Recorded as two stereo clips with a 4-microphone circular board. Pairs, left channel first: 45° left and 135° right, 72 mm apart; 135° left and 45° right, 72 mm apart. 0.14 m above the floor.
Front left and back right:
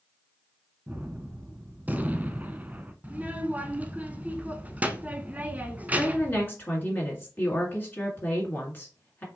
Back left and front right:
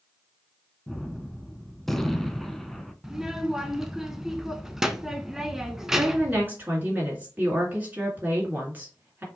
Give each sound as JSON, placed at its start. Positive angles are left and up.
{"t": 0.9, "sound": "a gunshot", "azimuth_deg": -140, "distance_m": 0.5}
{"t": 3.0, "sound": "a child speaking", "azimuth_deg": -115, "distance_m": 0.6}
{"t": 5.9, "sound": "a woman speaking", "azimuth_deg": 5, "distance_m": 2.0}